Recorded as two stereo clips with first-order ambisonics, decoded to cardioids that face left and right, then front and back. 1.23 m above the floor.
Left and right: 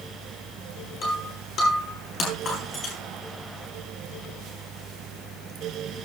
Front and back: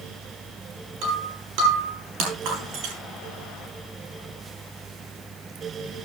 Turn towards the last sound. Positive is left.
turn(degrees=155)